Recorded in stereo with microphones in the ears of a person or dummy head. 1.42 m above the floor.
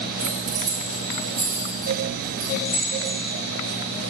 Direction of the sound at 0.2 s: 75° right (ahead or behind).